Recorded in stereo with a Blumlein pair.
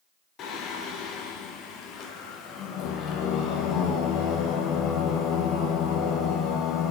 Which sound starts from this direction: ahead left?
Singing, at 0.4 s.